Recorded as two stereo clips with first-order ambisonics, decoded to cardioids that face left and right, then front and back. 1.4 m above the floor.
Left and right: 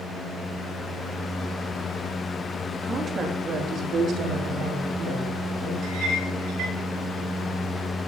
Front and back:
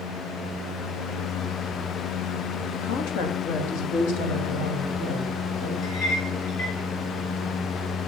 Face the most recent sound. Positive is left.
turn(degrees=-40)